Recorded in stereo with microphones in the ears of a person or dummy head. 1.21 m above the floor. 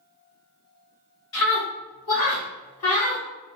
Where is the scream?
75° left (ahead or behind), 1.8 m; by 3.2 s 65° left (ahead or behind), 1.0 m.